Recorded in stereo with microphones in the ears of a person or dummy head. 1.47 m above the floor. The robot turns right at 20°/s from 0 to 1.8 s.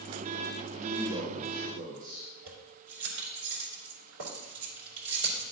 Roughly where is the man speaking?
Right.